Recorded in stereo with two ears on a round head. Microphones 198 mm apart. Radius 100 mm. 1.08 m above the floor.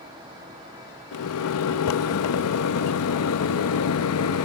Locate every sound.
1.1 s a microwave: 80° left, 0.7 m